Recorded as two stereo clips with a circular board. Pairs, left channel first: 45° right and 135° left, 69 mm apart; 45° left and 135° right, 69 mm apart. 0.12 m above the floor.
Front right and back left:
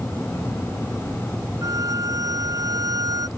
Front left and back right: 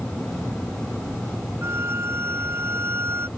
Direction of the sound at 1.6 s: 170° left.